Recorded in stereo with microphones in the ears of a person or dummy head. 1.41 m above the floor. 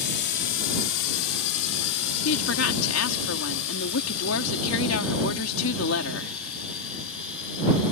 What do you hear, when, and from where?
0.0 s a drone: 55° left (ahead or behind); by 7.9 s 75° left (ahead or behind)
2.2 s a woman speaking: 80° left